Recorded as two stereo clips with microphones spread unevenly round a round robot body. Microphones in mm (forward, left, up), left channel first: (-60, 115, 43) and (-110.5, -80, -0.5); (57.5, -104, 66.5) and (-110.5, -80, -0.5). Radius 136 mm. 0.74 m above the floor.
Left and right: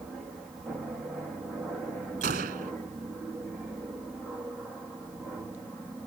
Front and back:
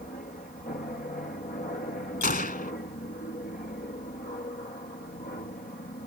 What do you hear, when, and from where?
0.0 s an aircraft: 35° right; by 6.1 s 25° right
2.2 s a gunshot: 45° right